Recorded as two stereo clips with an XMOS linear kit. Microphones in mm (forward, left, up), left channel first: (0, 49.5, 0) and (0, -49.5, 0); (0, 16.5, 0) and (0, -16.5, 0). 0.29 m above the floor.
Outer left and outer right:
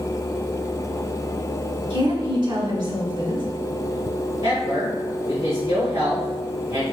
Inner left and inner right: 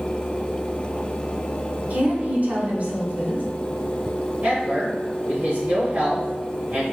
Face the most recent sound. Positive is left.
turn(degrees=-45)  # may be behind; listen again after turning